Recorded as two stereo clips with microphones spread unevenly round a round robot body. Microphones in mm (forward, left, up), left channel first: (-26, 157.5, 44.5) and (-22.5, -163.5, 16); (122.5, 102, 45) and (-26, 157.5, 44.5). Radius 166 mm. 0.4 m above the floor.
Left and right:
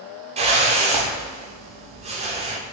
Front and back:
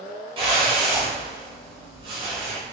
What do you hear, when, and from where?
0.4 s a whoosh: 150° right, 0.7 m